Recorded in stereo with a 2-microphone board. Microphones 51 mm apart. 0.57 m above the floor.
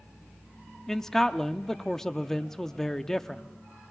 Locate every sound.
0.9 s a man speaking: 10° left (ahead or behind), 0.6 m